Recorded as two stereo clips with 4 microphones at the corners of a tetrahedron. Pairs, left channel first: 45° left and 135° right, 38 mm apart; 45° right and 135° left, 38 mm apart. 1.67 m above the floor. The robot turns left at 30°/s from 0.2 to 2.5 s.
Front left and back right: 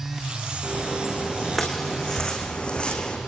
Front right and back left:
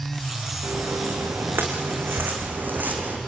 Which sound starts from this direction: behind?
Footsteps, at 0.6 s.